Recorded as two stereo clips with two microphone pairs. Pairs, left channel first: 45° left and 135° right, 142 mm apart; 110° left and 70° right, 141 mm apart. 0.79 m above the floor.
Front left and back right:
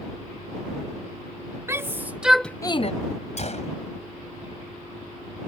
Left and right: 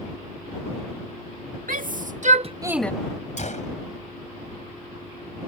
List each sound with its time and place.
1.7 s a shout: 65° right; by 2.9 s 40° left
3.4 s a gunshot: 80° left